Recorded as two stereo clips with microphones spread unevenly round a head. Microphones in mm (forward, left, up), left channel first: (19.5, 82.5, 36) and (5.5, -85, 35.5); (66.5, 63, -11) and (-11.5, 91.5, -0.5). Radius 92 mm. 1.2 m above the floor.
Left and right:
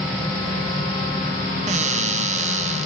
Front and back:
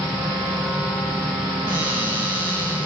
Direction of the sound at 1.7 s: 140° right.